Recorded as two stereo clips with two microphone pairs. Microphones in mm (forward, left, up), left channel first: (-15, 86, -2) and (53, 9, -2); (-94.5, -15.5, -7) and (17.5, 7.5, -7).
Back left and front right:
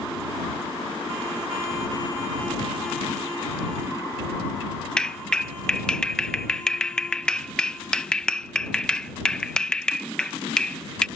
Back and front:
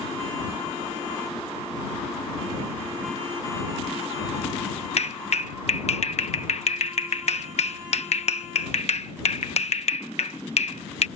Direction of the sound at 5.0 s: 150° right.